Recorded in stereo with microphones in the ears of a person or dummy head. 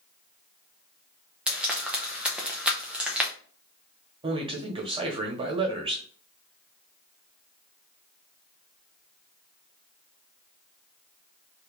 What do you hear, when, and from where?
1.5 s frying: 5° right (ahead or behind), 0.9 m
4.2 s a man speaking: 25° right (ahead or behind), 1.2 m